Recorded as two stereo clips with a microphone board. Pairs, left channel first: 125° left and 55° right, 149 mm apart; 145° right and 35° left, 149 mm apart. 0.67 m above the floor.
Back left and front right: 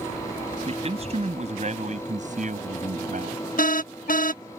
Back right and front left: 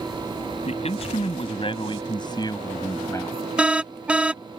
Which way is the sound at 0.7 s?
100° right.